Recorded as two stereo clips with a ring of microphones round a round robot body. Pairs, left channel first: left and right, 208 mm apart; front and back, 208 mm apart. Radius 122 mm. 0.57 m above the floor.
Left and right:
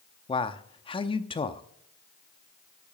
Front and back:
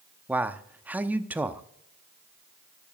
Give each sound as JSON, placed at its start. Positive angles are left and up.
{"t": 0.3, "sound": "a man speaking", "azimuth_deg": 110, "distance_m": 0.8}